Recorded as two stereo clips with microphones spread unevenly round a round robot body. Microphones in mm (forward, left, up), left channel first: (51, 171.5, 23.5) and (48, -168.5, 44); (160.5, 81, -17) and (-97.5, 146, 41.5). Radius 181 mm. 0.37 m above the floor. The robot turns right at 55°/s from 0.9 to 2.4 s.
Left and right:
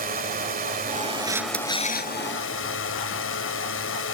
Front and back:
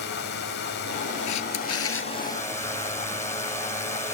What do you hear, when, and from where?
0.0 s a drone: 30° right; by 4.2 s 50° left
1.3 s a camera shutter: 15° right; by 2.1 s 35° left